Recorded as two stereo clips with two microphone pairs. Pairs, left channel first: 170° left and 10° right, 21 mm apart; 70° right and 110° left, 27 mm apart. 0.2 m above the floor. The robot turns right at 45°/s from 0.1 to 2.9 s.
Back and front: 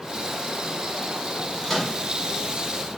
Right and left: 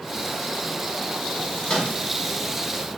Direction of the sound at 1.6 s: 125° right.